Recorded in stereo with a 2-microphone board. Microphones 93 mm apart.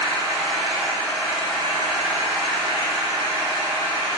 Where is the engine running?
5° left (ahead or behind), 1.1 m.